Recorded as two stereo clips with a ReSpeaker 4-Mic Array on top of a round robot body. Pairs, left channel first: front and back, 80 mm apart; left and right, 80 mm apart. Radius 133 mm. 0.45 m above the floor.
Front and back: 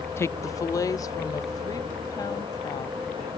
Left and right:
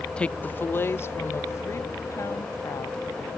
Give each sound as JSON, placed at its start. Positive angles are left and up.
{"t": 0.2, "sound": "a woman speaking", "azimuth_deg": 20}